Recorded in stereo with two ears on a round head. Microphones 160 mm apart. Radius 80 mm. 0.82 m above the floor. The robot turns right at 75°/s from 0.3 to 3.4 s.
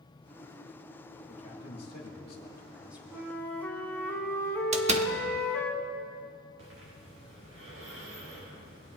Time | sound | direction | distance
1.3 | a man speaking | 65° left | 2 m
3.1 | a flute | 10° right (ahead or behind) | 1.4 m
4.7 | a door slam | 40° right (ahead or behind) | 0.8 m
6.6 | breathing | 80° right | 4 m